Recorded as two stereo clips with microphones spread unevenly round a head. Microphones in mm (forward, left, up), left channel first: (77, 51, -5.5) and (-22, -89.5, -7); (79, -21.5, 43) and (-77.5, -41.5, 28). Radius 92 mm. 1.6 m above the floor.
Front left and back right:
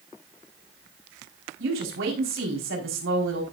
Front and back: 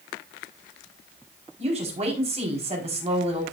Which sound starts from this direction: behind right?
A woman speaking, at 1.6 s.